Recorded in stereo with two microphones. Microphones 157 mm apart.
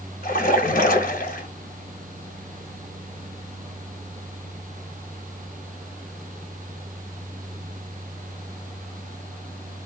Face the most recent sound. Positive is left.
turn(degrees=60)  # may be behind; listen again after turning